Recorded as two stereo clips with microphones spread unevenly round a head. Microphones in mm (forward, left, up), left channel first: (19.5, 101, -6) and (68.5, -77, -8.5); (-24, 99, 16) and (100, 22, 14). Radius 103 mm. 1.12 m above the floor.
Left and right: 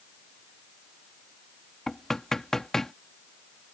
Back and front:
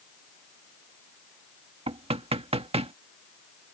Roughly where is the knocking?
Ahead.